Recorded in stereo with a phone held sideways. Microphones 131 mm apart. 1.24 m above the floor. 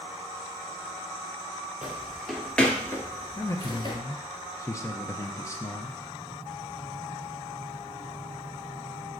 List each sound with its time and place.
1.8 s footsteps: 5° right (ahead or behind), 2.0 m; by 4.0 s 40° left (ahead or behind), 1.7 m
3.4 s a man speaking: 25° left (ahead or behind), 0.6 m